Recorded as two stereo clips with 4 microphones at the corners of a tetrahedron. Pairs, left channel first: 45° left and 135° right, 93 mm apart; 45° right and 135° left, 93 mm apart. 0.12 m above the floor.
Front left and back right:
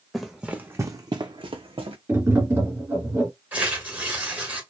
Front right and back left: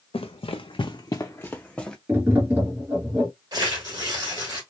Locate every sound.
0.1 s running footsteps: 45° right, 0.6 m; by 2.0 s 125° right, 0.8 m
2.1 s tapping: 175° right, 1.3 m
3.5 s tearing paper: 160° left, 1.3 m